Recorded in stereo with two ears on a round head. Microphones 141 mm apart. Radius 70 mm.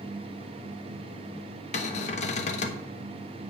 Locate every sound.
1.7 s a cupboard door: 45° left (ahead or behind), 1.0 m